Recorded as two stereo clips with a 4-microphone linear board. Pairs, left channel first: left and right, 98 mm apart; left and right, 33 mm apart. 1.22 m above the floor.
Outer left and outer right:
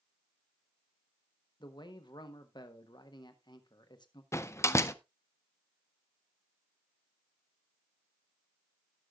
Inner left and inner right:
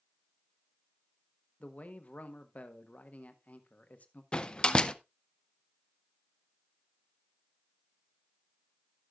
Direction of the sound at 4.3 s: 30° left (ahead or behind).